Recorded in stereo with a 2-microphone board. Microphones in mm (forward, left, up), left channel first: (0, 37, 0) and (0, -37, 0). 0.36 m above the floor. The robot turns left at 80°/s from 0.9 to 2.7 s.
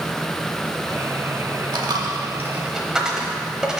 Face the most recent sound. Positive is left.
turn(degrees=-10)  # may be behind; listen again after turning